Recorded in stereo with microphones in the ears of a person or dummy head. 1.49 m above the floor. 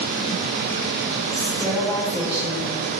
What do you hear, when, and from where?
1.3 s a woman speaking: 5° left (ahead or behind), 5.5 m